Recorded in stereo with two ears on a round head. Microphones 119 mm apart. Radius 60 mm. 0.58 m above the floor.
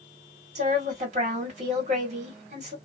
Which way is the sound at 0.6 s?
55° right (ahead or behind).